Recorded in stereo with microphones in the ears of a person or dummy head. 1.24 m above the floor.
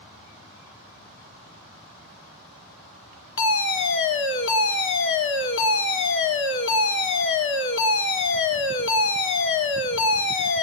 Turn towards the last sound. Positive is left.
turn(degrees=60)  # may be behind; listen again after turning